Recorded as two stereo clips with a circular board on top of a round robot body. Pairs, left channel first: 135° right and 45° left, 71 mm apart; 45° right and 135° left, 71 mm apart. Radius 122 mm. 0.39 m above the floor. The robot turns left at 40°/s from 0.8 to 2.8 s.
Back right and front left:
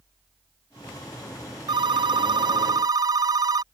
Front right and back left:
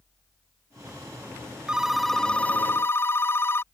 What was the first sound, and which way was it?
A phone ringing, 55° left.